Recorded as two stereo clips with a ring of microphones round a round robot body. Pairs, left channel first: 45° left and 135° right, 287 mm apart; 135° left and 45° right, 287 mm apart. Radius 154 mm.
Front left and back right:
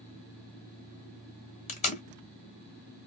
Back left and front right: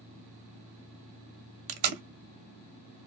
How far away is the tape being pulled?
About 0.6 m.